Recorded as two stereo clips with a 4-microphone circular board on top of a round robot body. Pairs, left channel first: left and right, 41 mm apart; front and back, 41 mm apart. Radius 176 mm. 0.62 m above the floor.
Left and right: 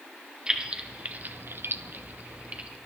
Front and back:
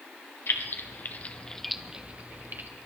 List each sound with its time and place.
0.5 s keys jangling: 20° right, 1.6 m; by 2.7 s 145° right, 1.5 m